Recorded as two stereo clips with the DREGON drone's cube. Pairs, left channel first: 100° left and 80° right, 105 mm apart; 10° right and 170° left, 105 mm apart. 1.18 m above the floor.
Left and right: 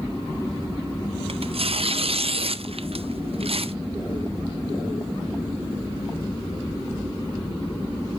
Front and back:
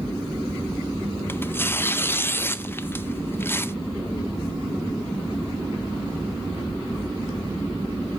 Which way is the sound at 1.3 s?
75° right.